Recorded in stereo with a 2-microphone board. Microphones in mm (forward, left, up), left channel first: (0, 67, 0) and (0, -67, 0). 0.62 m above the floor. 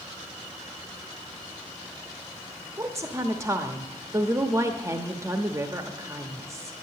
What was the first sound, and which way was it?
A woman speaking, 20° right (ahead or behind).